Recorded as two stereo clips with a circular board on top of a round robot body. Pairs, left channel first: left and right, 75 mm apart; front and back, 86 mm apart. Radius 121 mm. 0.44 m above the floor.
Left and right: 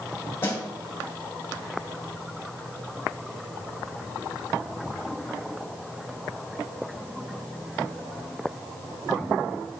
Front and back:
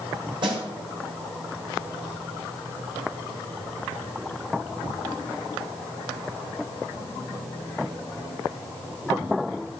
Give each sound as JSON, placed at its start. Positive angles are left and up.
{"t": 0.4, "sound": "a snare drum", "azimuth_deg": 150, "distance_m": 2.5}